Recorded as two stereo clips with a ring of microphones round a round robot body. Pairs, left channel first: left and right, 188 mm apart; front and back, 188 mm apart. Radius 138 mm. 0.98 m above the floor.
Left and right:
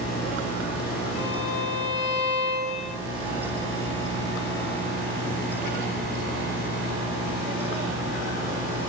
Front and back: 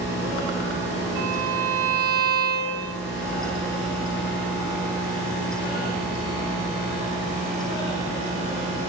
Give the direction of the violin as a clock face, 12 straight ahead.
6 o'clock.